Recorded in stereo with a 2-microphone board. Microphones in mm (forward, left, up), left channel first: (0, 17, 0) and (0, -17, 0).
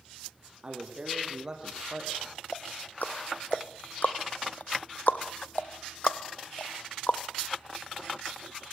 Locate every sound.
0.6 s a man speaking: 30° right (ahead or behind), 6 m; by 2.4 s 15° right (ahead or behind), 8 m
2.5 s ticking: 65° left (ahead or behind), 1.1 m